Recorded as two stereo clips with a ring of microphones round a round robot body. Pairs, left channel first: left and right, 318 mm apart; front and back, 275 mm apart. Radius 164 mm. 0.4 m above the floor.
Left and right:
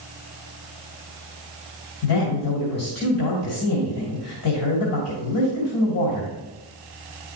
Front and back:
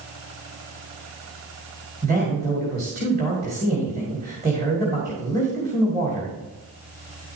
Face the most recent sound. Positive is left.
turn(degrees=130)